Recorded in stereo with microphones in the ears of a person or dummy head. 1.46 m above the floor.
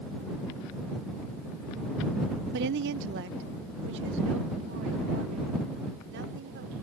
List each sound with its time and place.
2.5 s a woman speaking: 65° right (ahead or behind); by 6.7 s 70° right (ahead or behind)